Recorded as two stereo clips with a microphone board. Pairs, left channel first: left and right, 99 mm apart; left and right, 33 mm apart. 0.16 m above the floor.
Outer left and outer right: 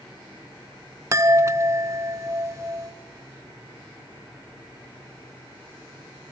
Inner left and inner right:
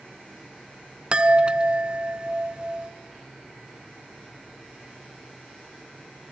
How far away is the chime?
About 0.6 m.